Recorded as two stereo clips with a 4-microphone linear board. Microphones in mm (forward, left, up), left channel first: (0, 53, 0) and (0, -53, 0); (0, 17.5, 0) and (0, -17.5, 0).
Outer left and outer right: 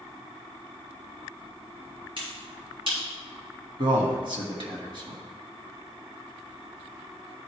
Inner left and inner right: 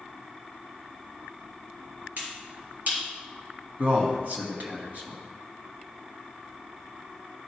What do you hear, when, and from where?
2.2 s a finger snap: 55° right (ahead or behind), 3 m
3.8 s a man speaking: 50° right (ahead or behind), 1.6 m